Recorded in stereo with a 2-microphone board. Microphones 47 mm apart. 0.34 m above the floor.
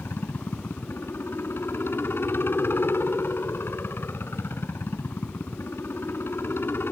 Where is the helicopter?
55° left (ahead or behind).